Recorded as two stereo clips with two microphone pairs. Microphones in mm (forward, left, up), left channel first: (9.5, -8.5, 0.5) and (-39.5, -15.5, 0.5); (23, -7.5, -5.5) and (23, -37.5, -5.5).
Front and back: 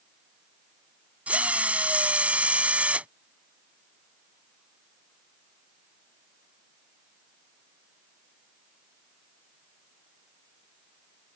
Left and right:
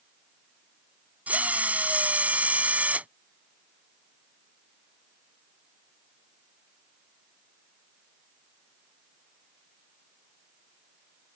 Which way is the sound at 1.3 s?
110° right.